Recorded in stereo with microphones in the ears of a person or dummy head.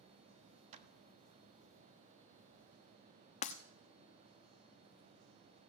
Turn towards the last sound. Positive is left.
turn(degrees=30)  # may be behind; listen again after turning